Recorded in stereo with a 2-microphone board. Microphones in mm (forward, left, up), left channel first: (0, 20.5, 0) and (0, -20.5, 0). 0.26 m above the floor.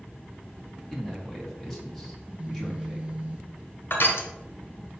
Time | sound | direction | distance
0.9 | a man speaking | 5° left (ahead or behind) | 1.9 m
2.2 | a phone buzzing | 30° right (ahead or behind) | 0.7 m
3.9 | crushing | 60° left (ahead or behind) | 1.4 m